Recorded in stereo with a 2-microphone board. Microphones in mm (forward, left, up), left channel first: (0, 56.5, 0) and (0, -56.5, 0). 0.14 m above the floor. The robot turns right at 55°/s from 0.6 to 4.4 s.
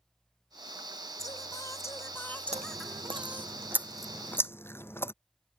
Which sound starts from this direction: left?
Singing, at 1.2 s.